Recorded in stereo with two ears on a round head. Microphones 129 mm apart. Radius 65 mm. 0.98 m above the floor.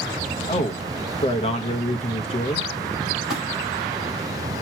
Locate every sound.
0.5 s a man speaking: 40° left (ahead or behind), 0.9 m
3.3 s a splash: centre (ahead or behind), 5 m